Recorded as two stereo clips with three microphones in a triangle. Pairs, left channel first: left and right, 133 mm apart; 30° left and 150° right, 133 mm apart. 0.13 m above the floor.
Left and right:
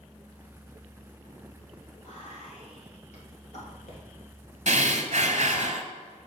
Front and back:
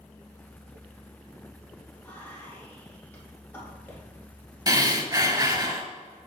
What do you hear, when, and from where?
2.0 s whispering: 100° left, 3 m
4.7 s breathing: 95° right, 0.7 m